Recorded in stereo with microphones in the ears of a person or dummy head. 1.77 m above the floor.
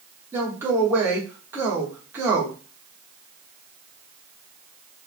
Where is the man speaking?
15° right (ahead or behind), 0.7 m.